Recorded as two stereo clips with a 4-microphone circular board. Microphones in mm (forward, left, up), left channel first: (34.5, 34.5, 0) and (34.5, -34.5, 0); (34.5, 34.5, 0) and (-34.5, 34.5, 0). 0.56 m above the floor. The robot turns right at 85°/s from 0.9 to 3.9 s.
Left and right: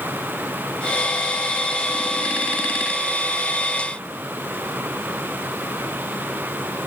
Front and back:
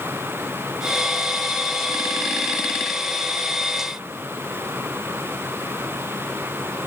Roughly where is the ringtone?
I don't hear a ringtone.